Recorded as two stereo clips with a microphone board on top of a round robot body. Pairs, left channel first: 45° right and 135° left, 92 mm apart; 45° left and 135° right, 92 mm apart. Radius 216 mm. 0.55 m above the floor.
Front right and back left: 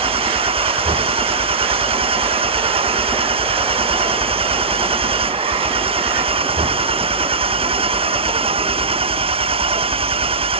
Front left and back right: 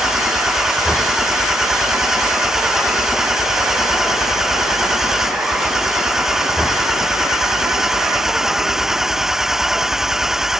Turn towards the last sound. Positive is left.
turn(degrees=140)